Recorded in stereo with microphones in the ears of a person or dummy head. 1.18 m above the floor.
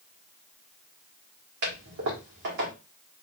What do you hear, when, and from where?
1.6 s a toilet flushing: 55° right (ahead or behind), 1.6 m